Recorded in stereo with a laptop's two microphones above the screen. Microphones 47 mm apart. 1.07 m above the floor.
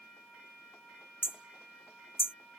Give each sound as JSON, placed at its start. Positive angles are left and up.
{"t": 1.2, "sound": "hammering", "side_deg": 55}